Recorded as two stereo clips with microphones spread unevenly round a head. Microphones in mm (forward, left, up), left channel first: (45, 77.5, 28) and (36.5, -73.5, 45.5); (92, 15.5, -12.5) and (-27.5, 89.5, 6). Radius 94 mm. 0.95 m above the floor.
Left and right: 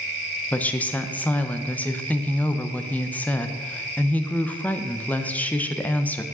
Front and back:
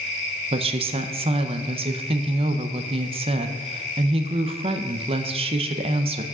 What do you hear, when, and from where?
0.5 s a woman speaking: 145° left, 0.5 m